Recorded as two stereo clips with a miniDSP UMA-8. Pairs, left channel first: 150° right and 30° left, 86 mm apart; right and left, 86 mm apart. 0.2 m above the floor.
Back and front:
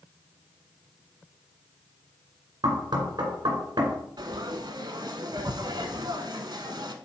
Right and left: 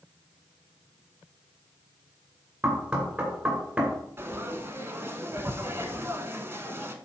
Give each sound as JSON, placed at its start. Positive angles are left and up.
{"t": 2.6, "sound": "knocking", "azimuth_deg": 25, "distance_m": 2.0}
{"t": 4.2, "sound": "frying", "azimuth_deg": 35, "distance_m": 0.8}